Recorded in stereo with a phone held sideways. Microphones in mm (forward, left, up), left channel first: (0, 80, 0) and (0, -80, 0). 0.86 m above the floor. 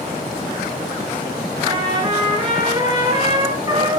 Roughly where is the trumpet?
Right.